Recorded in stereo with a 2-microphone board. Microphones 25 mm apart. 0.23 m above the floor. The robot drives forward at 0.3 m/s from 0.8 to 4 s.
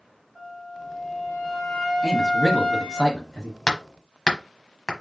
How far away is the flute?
About 3 m.